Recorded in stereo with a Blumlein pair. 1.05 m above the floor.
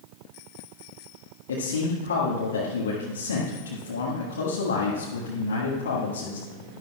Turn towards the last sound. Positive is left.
turn(degrees=70)